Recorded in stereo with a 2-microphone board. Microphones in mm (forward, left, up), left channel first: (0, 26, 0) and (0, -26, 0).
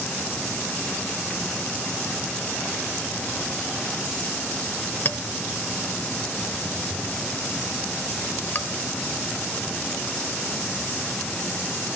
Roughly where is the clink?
Left.